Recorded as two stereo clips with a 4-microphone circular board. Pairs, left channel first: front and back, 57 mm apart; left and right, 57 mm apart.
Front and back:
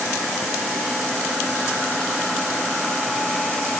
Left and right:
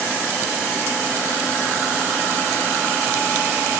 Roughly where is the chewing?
No chewing in this recording.